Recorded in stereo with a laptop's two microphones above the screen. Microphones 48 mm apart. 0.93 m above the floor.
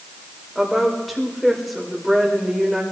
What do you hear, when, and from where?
0.6 s a woman speaking: centre (ahead or behind), 4.5 m